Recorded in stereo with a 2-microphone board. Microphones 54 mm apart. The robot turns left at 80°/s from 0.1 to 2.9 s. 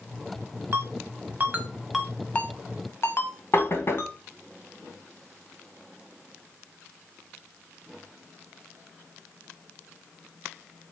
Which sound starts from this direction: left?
Knocking, at 3.5 s.